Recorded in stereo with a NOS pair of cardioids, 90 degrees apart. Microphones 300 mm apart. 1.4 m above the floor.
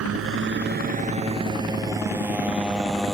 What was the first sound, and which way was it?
A motorcycle, 55° right.